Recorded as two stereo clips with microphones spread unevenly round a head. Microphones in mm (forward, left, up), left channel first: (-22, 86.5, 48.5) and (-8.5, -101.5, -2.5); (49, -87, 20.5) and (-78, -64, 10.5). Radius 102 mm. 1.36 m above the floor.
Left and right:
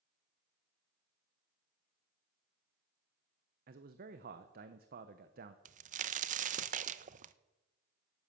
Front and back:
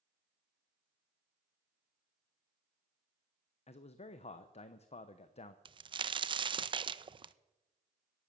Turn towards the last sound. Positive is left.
turn(degrees=-140)